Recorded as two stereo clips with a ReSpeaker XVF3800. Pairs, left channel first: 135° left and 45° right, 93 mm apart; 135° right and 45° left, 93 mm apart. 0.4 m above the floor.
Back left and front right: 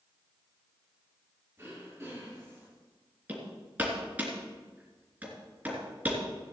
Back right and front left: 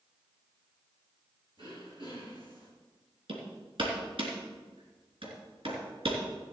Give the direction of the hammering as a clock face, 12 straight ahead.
11 o'clock.